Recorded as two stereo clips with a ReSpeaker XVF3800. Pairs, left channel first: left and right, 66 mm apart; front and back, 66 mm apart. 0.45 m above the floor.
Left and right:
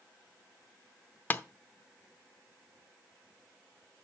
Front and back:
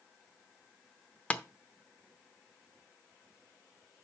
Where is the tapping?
55° left, 0.8 m.